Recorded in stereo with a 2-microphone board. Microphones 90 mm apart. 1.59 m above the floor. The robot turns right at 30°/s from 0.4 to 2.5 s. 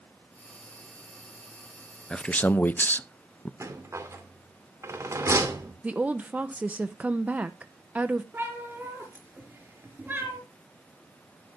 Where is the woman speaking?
15° right (ahead or behind), 0.7 m.